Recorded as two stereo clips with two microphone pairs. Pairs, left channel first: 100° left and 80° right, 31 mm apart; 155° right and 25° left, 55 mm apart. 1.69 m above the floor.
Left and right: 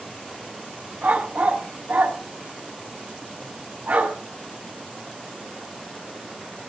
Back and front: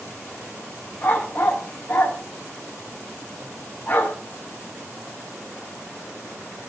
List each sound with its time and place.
1.0 s a dog barking: 105° right, 4.5 m